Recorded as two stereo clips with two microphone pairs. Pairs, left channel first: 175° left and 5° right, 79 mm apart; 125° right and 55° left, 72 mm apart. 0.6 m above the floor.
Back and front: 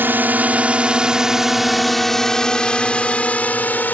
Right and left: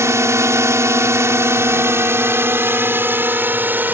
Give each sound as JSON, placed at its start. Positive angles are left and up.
{"t": 0.0, "sound": "a drone", "azimuth_deg": 45}